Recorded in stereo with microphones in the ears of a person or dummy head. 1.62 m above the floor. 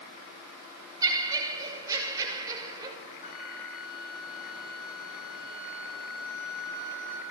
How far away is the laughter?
About 6.5 m.